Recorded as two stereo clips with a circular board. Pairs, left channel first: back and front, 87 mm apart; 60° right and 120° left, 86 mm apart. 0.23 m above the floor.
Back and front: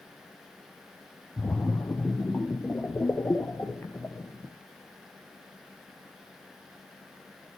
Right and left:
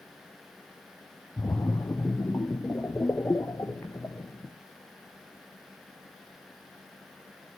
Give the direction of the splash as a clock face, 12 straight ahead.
4 o'clock.